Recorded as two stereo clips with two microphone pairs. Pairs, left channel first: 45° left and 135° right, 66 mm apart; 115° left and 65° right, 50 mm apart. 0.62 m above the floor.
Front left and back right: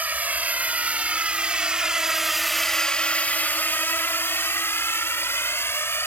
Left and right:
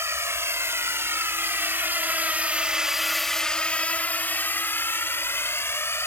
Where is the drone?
70° right; by 6.1 s 95° left.